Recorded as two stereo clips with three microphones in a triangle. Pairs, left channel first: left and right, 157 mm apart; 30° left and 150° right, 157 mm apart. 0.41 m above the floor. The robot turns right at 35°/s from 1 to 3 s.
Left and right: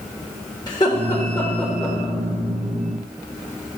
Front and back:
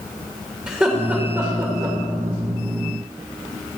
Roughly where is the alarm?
I don't hear an alarm.